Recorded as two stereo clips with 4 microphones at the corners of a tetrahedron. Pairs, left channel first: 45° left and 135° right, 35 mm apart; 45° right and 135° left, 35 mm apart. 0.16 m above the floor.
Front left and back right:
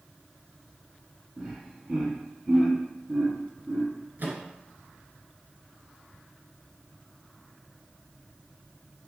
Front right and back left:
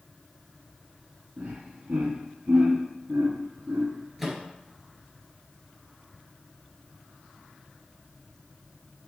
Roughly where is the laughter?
Behind.